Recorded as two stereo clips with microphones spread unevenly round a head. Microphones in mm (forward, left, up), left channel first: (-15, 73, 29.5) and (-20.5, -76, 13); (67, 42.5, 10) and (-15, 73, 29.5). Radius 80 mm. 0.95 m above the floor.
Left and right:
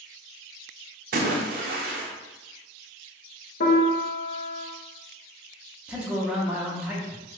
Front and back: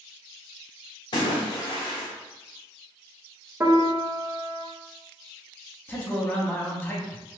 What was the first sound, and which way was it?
A splash, 65° right.